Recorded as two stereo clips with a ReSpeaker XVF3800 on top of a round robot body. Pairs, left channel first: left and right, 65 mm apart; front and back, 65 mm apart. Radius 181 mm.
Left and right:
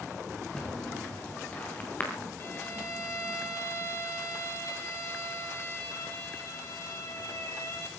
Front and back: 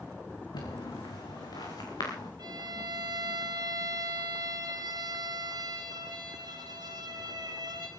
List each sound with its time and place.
0.5 s footsteps: 15° left, 4 m; by 2.3 s 25° left, 6 m
2.4 s a violin: 155° left, 0.8 m